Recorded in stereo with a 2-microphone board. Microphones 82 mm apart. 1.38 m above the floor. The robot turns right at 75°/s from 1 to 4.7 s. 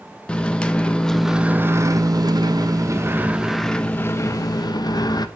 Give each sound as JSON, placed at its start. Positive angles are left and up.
{"t": 0.3, "sound": "a microwave", "azimuth_deg": 165, "distance_m": 0.8}